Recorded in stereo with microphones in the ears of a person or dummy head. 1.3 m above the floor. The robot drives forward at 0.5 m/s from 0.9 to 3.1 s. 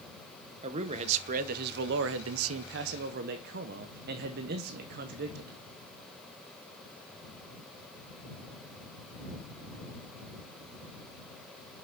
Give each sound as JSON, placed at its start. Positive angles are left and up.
{"t": 0.6, "sound": "a man speaking", "side_deg": -40, "distance_m": 0.9}